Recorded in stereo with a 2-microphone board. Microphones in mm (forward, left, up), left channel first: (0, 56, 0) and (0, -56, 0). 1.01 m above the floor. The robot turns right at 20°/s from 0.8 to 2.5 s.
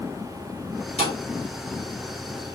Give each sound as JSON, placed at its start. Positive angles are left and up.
{"t": 1.0, "sound": "a thud", "side_deg": 70, "distance_m": 3.0}